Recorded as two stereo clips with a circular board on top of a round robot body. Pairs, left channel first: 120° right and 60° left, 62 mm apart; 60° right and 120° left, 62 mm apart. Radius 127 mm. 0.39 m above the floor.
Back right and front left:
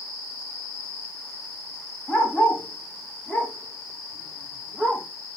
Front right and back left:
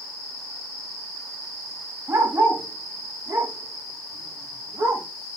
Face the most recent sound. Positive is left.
turn(degrees=160)